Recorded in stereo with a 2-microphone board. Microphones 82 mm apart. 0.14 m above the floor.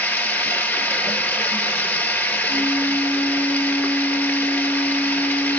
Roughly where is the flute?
Left.